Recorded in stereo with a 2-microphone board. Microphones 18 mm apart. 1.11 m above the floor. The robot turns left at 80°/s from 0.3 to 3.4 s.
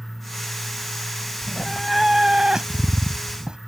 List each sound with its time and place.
1.4 s a cat meowing: 45° left; by 3.6 s 115° right